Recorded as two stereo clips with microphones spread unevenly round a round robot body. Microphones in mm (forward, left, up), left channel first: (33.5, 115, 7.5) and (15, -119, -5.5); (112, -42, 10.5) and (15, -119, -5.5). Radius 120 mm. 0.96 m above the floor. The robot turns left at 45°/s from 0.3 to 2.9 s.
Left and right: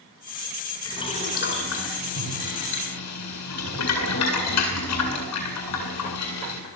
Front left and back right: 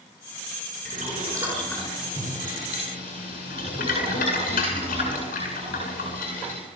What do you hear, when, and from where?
0.8 s boiling: 165° left, 8.5 m; by 6.6 s 70° left, 8.5 m